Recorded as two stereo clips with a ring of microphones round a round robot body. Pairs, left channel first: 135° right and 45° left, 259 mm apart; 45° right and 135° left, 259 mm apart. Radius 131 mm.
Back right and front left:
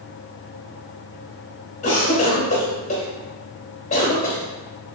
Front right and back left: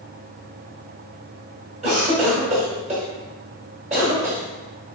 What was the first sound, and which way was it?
A cough, straight behind.